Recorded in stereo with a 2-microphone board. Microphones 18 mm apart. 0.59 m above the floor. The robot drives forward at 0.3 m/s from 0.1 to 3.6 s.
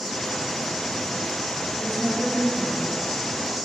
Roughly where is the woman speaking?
Centre.